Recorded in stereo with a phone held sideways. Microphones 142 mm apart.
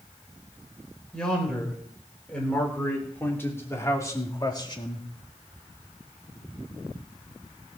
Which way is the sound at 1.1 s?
5° left (ahead or behind).